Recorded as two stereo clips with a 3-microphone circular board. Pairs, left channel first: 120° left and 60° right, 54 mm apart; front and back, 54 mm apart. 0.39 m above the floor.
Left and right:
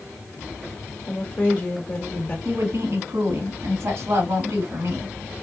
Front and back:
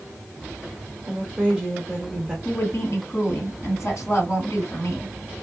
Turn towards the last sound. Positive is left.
turn(degrees=-35)